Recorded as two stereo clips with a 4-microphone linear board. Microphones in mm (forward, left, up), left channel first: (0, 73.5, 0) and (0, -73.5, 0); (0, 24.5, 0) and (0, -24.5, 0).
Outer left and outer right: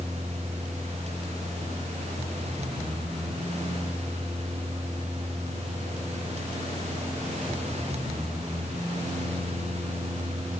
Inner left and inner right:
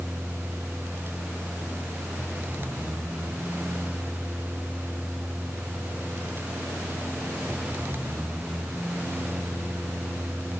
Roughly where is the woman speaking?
No woman speaking in this recording.